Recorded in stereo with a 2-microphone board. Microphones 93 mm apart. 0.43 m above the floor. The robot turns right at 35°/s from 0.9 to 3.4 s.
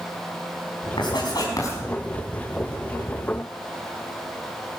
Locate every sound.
1.0 s writing: 60° left (ahead or behind), 4.5 m; by 1.8 s 35° left (ahead or behind), 4.5 m